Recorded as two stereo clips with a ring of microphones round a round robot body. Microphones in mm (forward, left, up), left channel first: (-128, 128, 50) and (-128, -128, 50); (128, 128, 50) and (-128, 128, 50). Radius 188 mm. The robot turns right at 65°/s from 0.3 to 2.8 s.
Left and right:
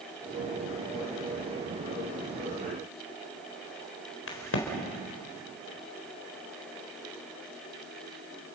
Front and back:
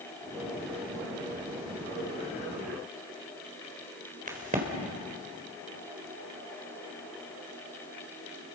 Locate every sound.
4.3 s a crack: 120° left, 4 m